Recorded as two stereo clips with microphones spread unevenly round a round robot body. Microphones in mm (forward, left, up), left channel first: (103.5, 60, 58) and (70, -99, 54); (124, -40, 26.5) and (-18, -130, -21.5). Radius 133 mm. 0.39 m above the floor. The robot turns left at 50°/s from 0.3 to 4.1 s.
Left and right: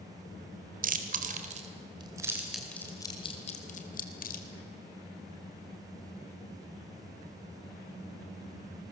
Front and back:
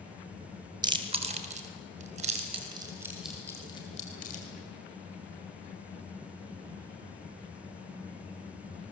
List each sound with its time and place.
0.8 s chewing: 100° right, 2 m; by 4.5 s 95° left, 2 m